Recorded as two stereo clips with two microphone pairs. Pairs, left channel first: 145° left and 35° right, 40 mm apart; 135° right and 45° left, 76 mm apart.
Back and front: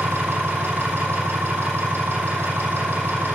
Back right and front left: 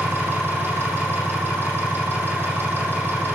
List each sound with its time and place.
0.0 s an engine running: 15° right, 9 m